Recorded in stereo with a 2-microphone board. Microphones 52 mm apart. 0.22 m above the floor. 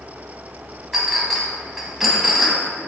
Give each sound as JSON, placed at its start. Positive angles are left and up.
{"t": 0.9, "sound": "a clink", "side_deg": -5, "distance_m": 1.1}